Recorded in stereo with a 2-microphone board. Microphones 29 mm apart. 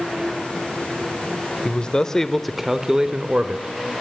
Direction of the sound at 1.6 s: 40° left (ahead or behind).